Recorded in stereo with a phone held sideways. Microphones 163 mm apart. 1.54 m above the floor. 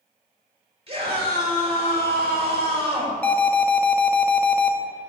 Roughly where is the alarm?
Centre.